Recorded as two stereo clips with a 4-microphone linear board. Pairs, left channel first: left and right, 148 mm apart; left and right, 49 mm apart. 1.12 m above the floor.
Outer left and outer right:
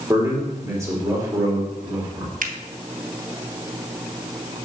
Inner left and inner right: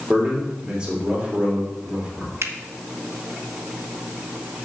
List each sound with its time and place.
0.1 s a man speaking: 20° right (ahead or behind), 3 m
2.4 s a finger snap: 65° right (ahead or behind), 0.8 m